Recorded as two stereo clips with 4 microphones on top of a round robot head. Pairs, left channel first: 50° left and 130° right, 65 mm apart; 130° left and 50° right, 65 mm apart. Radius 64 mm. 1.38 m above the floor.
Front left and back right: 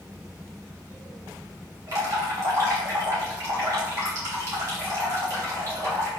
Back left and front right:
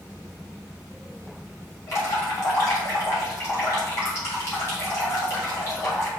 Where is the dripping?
Straight behind, 1.6 m.